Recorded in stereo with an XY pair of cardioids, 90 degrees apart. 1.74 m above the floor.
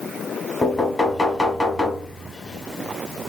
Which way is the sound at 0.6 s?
20° left.